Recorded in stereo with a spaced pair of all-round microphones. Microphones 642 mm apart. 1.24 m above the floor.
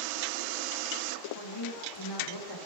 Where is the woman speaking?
40° left (ahead or behind), 2.5 m.